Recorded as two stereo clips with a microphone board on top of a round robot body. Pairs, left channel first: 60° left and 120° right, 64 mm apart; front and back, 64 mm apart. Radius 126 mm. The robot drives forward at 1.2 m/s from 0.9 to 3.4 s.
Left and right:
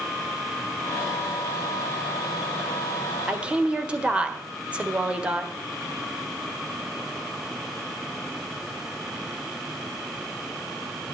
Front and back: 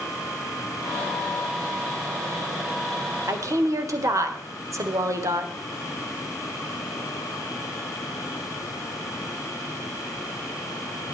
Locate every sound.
3.3 s a woman speaking: 170° left, 1.8 m